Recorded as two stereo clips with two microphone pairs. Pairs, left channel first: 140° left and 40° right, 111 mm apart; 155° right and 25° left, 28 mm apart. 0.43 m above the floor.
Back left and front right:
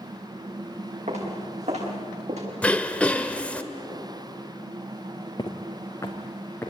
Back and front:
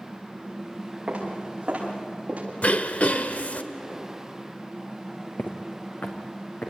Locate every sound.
1.1 s footsteps: 30° right, 8.5 m; by 2.5 s 25° right, 9 m
2.6 s throat clearing: 145° right, 1.1 m
5.4 s footsteps: 170° right, 2 m; by 6.7 s 150° right, 3.5 m